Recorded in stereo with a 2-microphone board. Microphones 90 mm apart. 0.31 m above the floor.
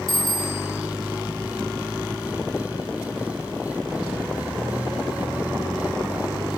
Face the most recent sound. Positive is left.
turn(degrees=75)  # may be behind; listen again after turning